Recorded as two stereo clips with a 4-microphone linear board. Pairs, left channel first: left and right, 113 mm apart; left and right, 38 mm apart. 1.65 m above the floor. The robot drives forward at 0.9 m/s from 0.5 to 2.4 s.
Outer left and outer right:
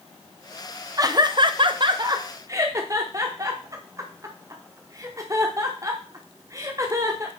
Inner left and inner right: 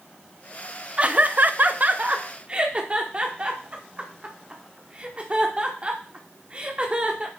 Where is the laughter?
30° right (ahead or behind), 0.8 m.